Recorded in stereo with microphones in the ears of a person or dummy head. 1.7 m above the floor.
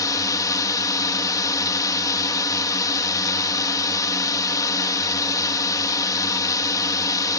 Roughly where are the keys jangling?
I don't hear keys jangling.